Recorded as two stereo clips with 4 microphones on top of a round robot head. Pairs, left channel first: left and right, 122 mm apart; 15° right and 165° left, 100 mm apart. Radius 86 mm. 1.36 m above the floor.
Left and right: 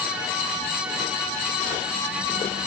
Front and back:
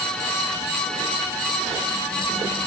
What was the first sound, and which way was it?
Only background noise.